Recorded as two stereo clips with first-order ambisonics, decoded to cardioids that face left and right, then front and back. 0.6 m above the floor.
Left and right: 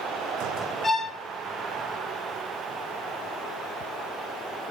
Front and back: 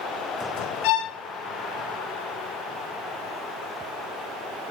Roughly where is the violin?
Ahead.